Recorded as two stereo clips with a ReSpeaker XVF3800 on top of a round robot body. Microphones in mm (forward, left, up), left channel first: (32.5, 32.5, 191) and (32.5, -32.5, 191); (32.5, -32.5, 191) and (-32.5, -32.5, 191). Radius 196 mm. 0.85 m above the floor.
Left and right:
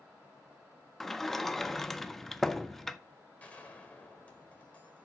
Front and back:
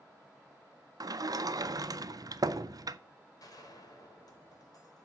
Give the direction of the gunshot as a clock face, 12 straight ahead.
11 o'clock.